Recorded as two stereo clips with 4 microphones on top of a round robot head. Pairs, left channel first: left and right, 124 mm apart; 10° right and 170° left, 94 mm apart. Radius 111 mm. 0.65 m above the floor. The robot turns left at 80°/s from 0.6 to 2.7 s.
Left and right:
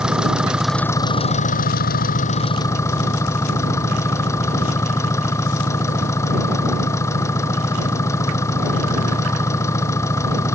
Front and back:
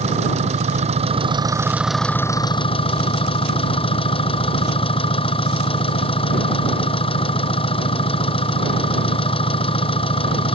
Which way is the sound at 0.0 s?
175° right.